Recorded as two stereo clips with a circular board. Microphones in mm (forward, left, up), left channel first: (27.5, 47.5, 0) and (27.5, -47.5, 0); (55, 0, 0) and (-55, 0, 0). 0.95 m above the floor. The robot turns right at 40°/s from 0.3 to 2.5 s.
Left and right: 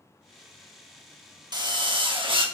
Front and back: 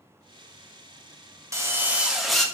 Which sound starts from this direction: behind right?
A drill, at 1.5 s.